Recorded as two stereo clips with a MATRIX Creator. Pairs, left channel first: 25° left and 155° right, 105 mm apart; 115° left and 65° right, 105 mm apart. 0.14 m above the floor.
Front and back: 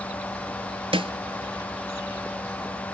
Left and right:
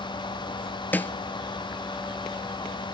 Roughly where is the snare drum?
Behind.